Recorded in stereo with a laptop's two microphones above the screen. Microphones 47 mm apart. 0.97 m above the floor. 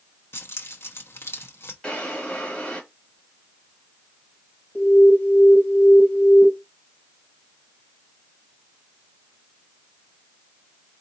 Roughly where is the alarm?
Left.